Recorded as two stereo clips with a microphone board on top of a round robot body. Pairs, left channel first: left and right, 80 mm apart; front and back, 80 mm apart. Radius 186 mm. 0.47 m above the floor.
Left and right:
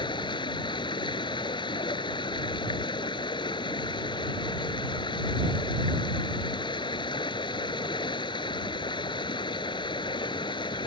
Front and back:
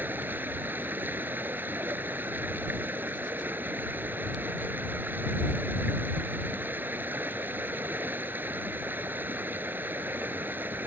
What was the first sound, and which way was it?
Running water, 115° left.